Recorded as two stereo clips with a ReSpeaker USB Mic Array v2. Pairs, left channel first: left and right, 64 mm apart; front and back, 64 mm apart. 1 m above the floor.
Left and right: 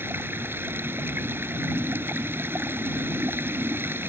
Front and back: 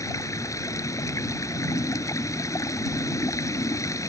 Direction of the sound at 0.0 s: 35° right.